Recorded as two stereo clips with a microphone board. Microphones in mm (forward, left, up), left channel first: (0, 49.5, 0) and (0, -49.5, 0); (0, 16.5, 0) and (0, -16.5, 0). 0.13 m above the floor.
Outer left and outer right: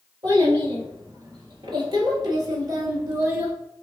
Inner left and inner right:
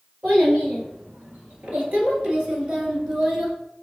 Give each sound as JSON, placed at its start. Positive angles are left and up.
{"t": 0.2, "sound": "a child speaking", "side_deg": -55, "distance_m": 1.9}